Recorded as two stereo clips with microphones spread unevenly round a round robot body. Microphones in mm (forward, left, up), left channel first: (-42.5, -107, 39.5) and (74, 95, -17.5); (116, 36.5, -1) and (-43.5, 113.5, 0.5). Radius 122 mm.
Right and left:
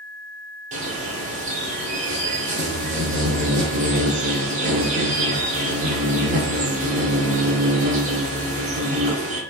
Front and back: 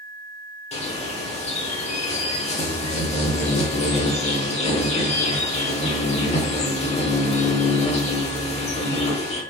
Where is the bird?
20° left, 0.8 m.